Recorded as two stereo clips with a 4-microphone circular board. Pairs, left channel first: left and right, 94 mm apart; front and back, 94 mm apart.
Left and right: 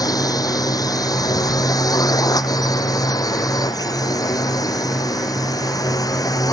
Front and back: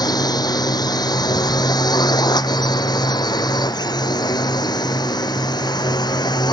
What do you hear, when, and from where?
0.0 s a drone: 45° left; by 6.5 s 40° left